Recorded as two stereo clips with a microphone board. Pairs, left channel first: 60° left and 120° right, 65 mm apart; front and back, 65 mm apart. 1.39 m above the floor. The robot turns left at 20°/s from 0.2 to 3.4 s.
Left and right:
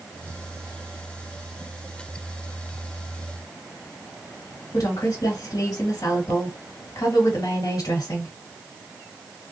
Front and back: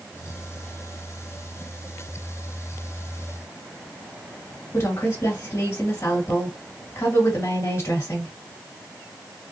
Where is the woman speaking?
40° left, 1.9 m.